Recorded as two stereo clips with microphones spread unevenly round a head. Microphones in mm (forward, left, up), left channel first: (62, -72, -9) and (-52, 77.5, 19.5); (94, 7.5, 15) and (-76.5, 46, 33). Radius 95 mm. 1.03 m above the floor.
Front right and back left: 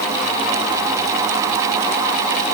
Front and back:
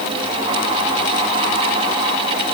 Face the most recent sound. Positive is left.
No sound to turn to.